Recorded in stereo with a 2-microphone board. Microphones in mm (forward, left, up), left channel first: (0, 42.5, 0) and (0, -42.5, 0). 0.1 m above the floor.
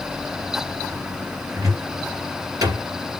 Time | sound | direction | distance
1.6 | a cupboard door | 40° right (ahead or behind) | 2 m